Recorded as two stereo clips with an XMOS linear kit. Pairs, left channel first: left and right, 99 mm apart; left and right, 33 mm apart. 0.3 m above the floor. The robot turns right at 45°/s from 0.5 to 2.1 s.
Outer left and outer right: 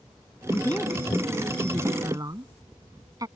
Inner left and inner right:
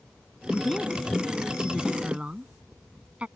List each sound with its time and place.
0.5 s a woman speaking: 25° left (ahead or behind); by 3.3 s 40° right (ahead or behind)